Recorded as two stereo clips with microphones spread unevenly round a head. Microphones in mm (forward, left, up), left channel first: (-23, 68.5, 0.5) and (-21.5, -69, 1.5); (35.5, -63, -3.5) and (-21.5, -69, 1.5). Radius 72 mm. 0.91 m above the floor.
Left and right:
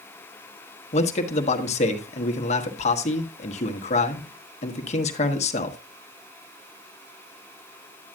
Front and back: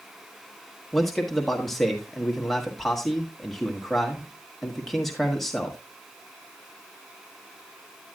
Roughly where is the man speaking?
Left.